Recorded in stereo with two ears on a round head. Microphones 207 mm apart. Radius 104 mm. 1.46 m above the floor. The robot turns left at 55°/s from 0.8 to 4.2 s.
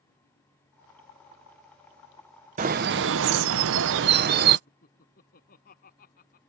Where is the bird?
40° right; by 4.6 s 125° right.